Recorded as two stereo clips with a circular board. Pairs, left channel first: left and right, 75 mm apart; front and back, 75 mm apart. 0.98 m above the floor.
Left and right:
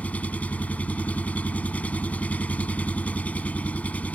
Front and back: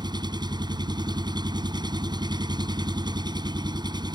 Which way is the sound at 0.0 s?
160° left.